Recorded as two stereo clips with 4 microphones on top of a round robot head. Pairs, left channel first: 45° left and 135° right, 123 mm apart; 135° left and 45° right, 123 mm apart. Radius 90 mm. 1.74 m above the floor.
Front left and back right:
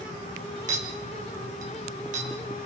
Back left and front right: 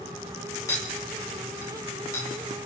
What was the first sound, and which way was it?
A clink, 155° right.